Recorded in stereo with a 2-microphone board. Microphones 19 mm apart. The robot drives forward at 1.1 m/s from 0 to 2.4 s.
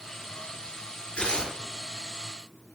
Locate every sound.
1.2 s tearing paper: 70° left (ahead or behind), 6 m